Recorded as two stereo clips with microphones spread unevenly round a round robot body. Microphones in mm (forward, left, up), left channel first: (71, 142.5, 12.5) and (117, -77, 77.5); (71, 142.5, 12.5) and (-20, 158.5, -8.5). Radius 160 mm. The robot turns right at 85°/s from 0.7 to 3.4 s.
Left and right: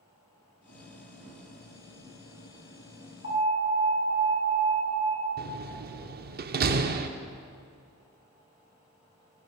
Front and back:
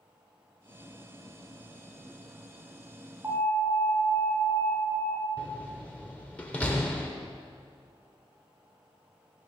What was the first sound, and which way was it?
An alarm, 115° left.